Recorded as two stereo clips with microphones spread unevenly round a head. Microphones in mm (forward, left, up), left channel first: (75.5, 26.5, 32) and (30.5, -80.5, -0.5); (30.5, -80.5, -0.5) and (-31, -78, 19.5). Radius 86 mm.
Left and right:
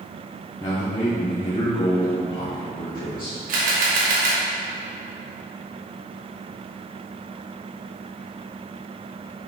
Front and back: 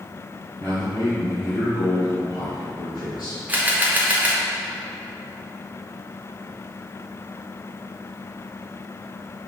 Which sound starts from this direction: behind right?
A camera shutter, at 3.5 s.